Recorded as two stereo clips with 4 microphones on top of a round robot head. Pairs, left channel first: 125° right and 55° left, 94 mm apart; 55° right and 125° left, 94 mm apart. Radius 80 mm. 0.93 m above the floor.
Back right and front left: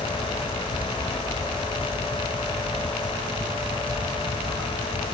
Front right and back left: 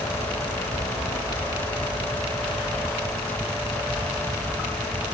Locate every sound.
Only background noise.